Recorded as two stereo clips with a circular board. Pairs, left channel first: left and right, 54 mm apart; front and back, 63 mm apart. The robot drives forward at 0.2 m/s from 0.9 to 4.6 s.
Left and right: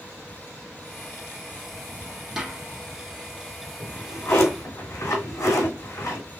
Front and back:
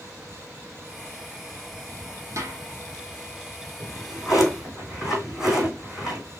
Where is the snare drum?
165° right, 1.6 m.